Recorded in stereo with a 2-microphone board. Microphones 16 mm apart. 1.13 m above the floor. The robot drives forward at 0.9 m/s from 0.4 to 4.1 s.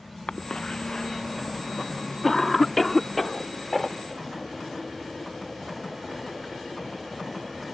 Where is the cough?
60° left (ahead or behind); by 7.7 s 10° left (ahead or behind).